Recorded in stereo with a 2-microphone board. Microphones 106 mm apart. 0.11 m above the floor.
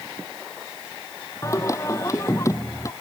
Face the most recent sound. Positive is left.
turn(degrees=30)  # may be behind; listen again after turning